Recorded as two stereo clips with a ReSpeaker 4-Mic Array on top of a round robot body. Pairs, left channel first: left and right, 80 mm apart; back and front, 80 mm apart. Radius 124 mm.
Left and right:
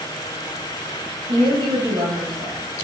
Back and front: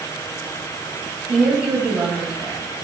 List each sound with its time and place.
1.3 s a woman speaking: 75° right, 3.5 m